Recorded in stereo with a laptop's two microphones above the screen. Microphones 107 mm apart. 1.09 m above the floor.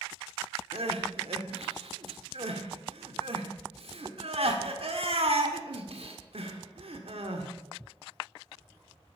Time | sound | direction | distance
0.7 | crying | 65° right (ahead or behind) | 1.6 m